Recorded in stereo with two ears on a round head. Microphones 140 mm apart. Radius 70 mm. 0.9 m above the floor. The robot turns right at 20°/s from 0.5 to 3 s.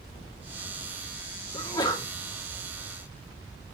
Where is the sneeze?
20° left (ahead or behind), 2.0 m; by 2.1 s 30° left (ahead or behind), 2.0 m.